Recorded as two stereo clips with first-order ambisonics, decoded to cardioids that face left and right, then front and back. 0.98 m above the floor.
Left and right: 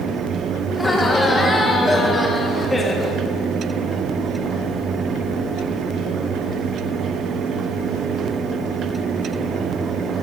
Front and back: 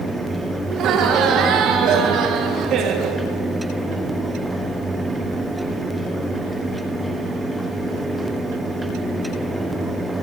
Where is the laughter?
170° left, 0.8 m.